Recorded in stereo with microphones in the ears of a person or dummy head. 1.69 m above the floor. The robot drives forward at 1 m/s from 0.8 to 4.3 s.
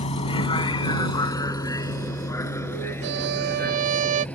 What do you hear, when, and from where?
0.0 s a vehicle: 30° left (ahead or behind); by 4.3 s 5° left (ahead or behind)
3.0 s a violin: 55° right (ahead or behind); by 4.2 s 40° right (ahead or behind)